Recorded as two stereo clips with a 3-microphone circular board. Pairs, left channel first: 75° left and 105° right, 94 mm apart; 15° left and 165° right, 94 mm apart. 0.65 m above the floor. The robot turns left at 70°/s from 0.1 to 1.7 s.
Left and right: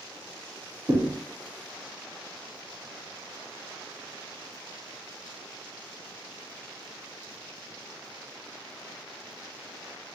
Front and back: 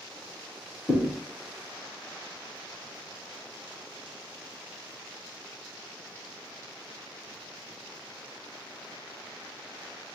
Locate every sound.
0.9 s a thud: 50° right, 0.7 m; by 1.1 s 70° right, 0.7 m